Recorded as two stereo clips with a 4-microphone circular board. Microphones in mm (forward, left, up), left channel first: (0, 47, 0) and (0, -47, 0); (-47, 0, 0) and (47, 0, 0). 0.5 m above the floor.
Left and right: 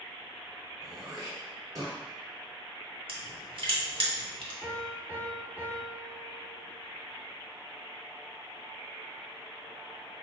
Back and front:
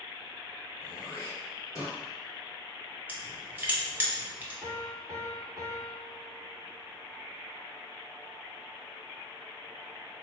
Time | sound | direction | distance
0.8 | throat clearing | 130° right | 1.7 m
3.1 | crushing | 70° right | 0.9 m
4.6 | a piano | 100° left | 1.2 m